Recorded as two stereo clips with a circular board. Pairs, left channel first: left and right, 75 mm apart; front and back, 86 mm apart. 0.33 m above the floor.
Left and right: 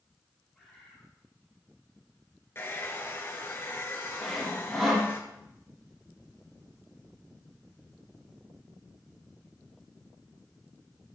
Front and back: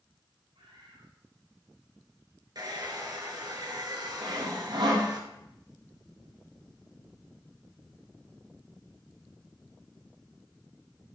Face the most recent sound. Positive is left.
turn(degrees=180)